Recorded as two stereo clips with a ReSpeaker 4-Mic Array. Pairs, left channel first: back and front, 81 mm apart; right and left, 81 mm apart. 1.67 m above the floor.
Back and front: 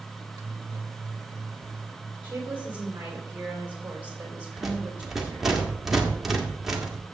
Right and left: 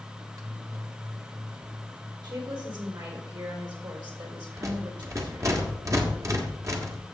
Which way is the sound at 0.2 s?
45° left.